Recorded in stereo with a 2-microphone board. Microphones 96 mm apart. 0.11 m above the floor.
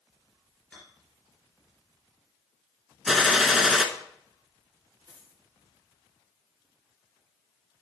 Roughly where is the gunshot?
Centre.